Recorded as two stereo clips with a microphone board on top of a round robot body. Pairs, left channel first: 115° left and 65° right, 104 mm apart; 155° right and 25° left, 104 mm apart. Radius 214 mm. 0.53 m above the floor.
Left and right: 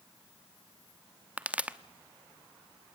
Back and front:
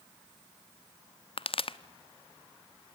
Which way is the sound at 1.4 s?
145° right.